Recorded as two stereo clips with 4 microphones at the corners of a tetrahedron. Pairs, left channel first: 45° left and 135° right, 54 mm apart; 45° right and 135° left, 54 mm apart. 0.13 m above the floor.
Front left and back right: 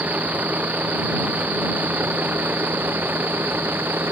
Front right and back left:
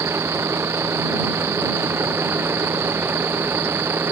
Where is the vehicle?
170° left; by 4.1 s 175° left.